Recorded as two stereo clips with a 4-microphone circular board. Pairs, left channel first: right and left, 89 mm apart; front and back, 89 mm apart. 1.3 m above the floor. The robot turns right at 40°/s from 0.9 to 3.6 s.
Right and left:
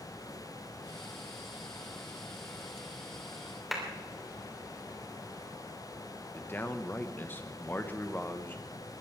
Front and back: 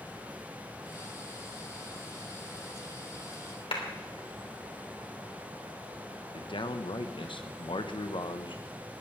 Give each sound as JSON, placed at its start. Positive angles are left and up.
{"t": 3.7, "sound": "a clap", "azimuth_deg": 0, "distance_m": 3.0}
{"t": 6.3, "sound": "a man speaking", "azimuth_deg": -20, "distance_m": 1.2}